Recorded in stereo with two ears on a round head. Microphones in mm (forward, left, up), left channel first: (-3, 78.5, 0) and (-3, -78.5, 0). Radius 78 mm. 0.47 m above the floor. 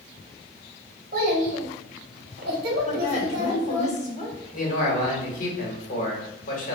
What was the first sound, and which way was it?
A child speaking, 50° right (ahead or behind).